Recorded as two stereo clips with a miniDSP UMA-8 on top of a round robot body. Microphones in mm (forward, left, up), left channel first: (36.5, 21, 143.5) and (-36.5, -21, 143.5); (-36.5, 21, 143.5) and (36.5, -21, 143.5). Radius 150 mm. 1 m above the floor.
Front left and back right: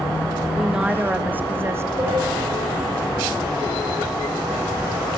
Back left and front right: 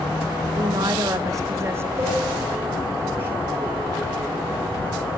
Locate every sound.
0.6 s a woman speaking: 65° right, 1.7 m; by 1.9 s 90° right, 1.8 m
2.0 s a cowbell: 90° right, 6.5 m